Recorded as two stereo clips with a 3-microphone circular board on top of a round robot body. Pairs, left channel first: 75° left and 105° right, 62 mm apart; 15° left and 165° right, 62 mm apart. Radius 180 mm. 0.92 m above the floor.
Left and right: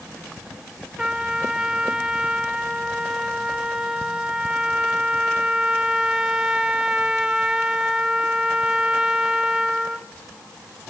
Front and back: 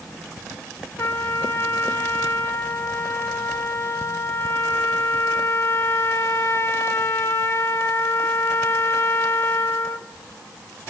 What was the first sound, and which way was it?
A trumpet, 25° right.